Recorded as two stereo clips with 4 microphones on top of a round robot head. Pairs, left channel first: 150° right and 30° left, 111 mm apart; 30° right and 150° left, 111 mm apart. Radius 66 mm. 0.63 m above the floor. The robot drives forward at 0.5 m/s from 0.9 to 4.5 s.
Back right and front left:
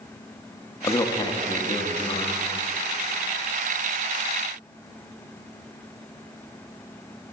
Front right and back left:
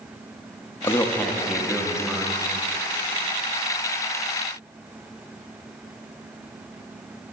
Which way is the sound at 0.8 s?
90° right.